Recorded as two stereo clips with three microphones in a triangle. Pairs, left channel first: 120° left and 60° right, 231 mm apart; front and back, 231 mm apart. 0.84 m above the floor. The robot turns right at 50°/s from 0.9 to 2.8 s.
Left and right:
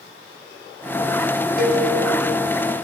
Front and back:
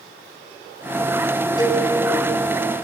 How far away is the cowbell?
About 3.5 m.